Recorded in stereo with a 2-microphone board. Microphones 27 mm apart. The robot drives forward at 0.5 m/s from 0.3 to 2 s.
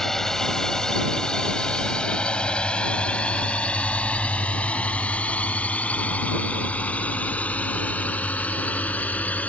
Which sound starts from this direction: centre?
A drone, at 0.0 s.